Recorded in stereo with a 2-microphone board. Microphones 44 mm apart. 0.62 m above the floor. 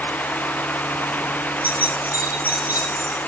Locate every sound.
1.6 s keys jangling: 50° right (ahead or behind), 7.5 m